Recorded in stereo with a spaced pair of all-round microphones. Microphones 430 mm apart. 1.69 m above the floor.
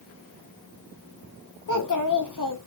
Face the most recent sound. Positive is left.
turn(degrees=50)  # may be behind; listen again after turning